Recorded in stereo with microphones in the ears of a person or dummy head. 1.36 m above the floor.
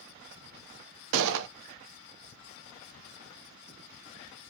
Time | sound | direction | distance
1.1 | a gunshot | 70° right (ahead or behind) | 0.6 m